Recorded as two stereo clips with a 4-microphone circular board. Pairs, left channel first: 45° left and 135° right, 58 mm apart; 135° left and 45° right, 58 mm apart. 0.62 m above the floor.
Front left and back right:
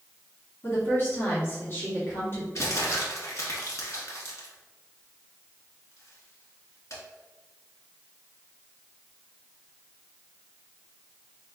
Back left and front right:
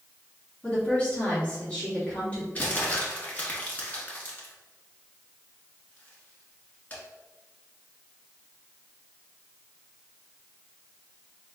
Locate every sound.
0.6 s a woman speaking: 75° left, 1.6 m
2.5 s crumpling: 75° left, 1.3 m